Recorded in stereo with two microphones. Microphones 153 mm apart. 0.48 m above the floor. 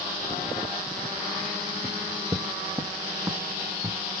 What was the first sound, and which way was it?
Footsteps, 20° right (ahead or behind).